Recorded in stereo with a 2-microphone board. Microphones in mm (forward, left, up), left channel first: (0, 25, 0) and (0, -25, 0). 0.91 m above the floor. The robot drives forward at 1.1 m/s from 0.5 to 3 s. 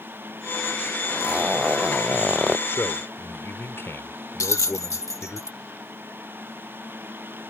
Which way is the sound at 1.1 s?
25° right (ahead or behind).